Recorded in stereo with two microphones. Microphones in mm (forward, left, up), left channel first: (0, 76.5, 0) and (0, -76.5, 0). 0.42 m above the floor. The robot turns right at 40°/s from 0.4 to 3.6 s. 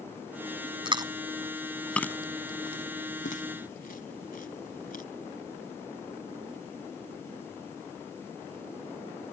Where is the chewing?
35° right (ahead or behind); by 5.0 s 75° left (ahead or behind).